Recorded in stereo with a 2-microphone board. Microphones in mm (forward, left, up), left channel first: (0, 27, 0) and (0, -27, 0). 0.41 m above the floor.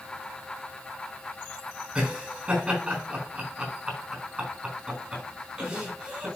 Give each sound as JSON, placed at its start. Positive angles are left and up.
{"t": 1.9, "sound": "laughter", "side_deg": -25, "distance_m": 4.0}